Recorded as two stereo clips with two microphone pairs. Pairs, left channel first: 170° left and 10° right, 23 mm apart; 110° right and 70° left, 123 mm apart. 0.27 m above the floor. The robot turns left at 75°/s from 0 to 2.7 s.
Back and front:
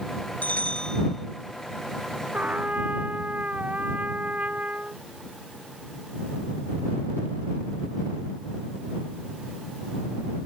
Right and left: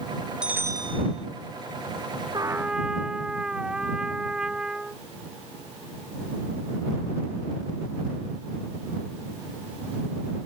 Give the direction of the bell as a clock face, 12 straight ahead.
7 o'clock.